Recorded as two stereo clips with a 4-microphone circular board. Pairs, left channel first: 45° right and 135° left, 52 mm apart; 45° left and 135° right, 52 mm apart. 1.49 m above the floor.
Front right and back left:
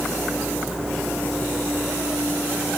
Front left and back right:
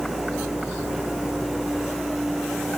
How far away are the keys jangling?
No keys jangling in this recording.